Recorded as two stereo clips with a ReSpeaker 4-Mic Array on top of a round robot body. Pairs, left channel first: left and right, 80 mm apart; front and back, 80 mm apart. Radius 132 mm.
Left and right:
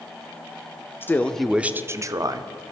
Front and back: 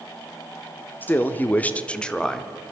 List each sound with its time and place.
1.0 s a man speaking: 50° left, 0.9 m; by 2.5 s 85° right, 1.3 m